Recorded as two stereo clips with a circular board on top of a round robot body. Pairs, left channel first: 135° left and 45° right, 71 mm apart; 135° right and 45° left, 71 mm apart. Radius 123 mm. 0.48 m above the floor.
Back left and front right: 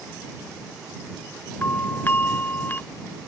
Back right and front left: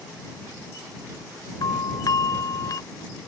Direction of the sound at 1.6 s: 165° right.